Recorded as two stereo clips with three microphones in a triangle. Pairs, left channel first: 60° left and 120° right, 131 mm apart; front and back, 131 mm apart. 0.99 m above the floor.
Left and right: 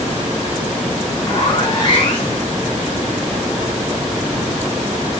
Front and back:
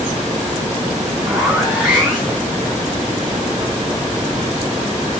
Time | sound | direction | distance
1.2 | a zipper | 100° left | 1.1 m